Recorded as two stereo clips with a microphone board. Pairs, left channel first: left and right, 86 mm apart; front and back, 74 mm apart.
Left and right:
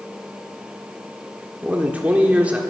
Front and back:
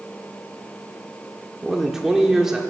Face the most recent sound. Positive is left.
turn(degrees=-110)